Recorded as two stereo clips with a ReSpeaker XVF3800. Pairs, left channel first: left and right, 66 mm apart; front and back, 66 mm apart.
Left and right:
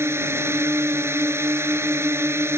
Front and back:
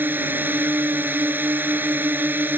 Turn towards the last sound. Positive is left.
turn(degrees=-125)